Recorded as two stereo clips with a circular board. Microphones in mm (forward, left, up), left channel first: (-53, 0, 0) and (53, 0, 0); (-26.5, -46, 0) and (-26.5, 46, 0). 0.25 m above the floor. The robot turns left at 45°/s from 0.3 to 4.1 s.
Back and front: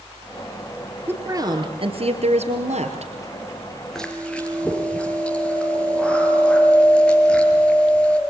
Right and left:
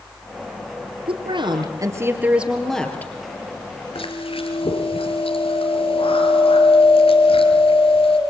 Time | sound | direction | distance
1.1 | a woman speaking | 70° left | 4 m
4.0 | chewing | 95° right | 5 m